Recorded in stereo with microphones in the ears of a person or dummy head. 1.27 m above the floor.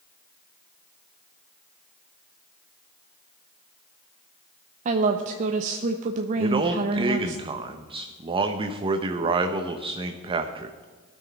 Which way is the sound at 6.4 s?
25° right (ahead or behind).